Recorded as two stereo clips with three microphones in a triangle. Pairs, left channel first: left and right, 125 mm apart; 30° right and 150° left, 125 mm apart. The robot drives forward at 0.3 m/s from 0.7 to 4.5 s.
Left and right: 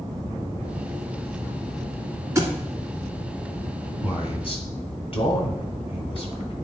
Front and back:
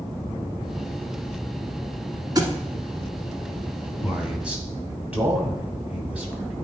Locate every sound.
2.4 s a thud: 155° right, 1.3 m
4.0 s a man speaking: 70° left, 1.9 m; by 6.5 s 75° left, 1.8 m